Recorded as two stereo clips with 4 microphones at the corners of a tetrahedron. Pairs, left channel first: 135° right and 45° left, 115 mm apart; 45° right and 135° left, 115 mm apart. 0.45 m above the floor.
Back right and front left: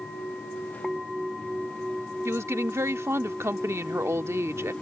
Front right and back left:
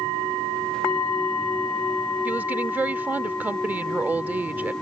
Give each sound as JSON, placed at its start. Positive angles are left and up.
{"t": 2.2, "sound": "a woman speaking", "azimuth_deg": 80}